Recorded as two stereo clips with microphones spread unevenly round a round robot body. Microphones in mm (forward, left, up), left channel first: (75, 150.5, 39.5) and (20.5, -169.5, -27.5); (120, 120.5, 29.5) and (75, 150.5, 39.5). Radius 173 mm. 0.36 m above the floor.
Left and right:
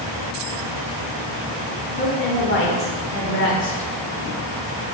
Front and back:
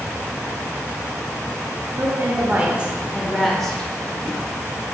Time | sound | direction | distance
2.0 | a woman speaking | 130° left | 1.1 m